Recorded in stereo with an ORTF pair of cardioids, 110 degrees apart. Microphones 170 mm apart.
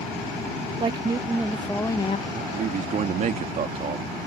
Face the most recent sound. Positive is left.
turn(degrees=-45)